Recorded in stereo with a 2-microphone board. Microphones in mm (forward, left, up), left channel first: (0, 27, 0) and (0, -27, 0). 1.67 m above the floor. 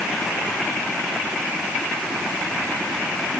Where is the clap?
No clap in this recording.